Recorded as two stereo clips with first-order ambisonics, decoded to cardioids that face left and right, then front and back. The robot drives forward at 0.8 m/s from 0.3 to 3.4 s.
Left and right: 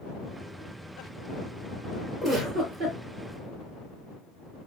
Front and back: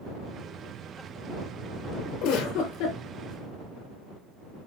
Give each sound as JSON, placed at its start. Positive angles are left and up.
{"t": 2.2, "sound": "a giggle", "azimuth_deg": -20, "distance_m": 4.0}